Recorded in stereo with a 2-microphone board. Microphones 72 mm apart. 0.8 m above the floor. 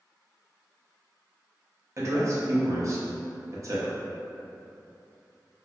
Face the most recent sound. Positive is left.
turn(degrees=-45)  # may be behind; listen again after turning